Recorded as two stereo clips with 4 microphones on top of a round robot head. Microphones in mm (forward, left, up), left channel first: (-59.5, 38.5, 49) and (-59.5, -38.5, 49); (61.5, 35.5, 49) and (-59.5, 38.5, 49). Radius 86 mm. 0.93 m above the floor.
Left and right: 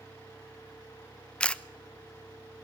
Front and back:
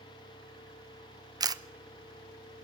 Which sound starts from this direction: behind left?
A camera shutter, at 1.4 s.